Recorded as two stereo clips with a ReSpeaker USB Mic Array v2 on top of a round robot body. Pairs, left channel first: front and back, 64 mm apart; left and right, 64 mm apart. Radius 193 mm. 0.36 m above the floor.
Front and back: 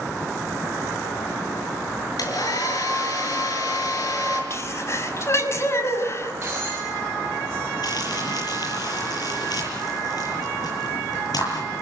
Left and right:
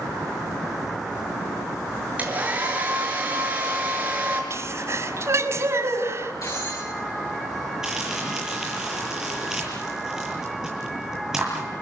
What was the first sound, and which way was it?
A hair dryer, 20° right.